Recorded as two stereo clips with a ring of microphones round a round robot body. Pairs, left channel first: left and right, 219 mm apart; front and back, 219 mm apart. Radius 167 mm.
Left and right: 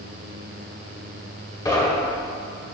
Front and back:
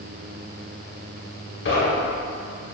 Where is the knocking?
15° left, 2 m.